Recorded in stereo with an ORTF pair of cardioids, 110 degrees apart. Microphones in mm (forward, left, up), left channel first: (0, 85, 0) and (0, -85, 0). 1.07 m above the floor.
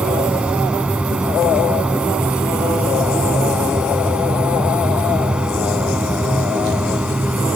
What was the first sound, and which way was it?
A machine running, 5° right.